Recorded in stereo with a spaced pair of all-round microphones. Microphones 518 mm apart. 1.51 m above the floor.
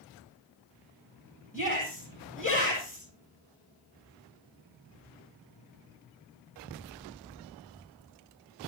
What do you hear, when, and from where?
1.5 s a shout: 15° left (ahead or behind), 9.5 m